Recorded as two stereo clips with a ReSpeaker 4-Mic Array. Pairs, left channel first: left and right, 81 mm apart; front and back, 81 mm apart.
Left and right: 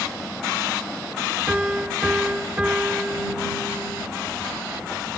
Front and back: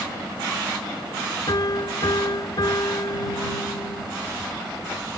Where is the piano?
15° right.